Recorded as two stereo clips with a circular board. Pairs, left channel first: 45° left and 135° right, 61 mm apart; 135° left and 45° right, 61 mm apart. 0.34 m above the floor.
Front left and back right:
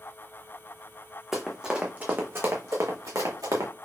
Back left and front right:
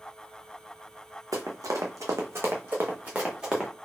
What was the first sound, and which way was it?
Running footsteps, 50° right.